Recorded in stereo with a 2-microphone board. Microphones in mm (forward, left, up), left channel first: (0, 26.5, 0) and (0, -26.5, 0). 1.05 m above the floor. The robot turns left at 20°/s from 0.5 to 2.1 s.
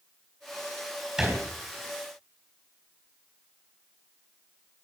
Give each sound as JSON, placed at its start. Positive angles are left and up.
{"t": 1.2, "sound": "a thud", "side_deg": -10, "distance_m": 4.0}